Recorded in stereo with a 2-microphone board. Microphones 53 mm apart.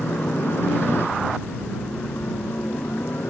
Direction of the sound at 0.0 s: 50° left (ahead or behind).